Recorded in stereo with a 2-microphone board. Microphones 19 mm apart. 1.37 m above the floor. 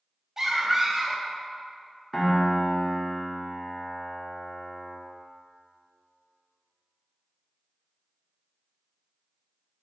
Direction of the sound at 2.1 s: 15° left (ahead or behind).